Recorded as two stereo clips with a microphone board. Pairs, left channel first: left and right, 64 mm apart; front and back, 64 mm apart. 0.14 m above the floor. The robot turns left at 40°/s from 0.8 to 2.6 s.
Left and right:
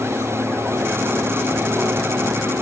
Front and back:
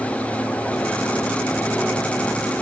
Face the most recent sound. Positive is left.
No sound to turn to.